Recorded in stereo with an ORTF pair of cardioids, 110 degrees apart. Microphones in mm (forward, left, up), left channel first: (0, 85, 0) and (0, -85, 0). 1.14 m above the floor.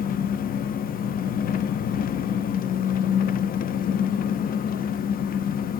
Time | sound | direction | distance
0.0 | an engine running | 55° left | 0.9 m